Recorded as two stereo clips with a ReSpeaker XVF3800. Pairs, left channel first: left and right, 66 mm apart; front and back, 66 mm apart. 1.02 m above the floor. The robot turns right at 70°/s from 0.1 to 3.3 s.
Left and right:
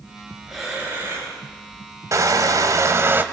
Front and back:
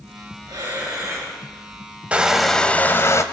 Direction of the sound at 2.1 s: 110° right.